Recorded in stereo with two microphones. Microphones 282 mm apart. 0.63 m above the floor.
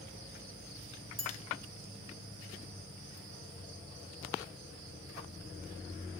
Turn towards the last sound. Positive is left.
turn(degrees=-75)  # may be behind; listen again after turning